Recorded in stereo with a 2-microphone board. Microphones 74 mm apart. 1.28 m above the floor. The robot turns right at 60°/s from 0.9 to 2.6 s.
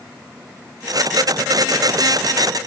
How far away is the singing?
I don't hear singing.